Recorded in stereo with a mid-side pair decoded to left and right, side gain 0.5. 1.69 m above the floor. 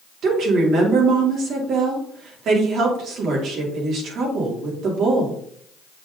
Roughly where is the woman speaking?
Ahead right.